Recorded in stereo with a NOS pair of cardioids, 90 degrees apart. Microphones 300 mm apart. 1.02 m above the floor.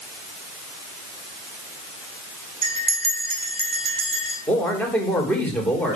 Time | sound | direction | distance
2.6 | a bell | 20° right | 3.5 m
4.5 | a man speaking | 5° left | 3 m